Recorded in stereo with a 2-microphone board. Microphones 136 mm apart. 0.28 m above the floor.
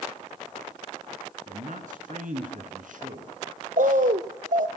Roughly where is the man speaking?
Right.